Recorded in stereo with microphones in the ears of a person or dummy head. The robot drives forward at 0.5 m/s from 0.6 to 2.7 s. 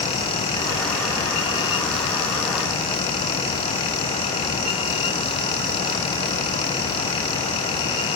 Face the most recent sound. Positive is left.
No sound to turn to.